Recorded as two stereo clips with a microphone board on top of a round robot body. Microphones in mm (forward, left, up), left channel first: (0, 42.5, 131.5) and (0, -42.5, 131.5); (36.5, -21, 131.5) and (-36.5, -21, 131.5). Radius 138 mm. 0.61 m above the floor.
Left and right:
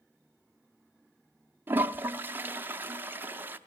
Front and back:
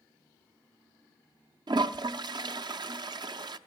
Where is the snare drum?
No snare drum in this recording.